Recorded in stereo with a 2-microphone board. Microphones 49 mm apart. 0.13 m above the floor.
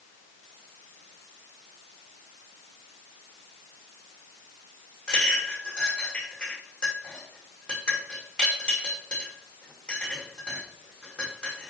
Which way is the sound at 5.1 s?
15° left (ahead or behind).